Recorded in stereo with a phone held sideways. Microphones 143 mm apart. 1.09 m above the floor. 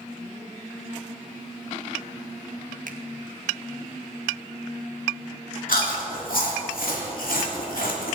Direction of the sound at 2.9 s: 70° right (ahead or behind).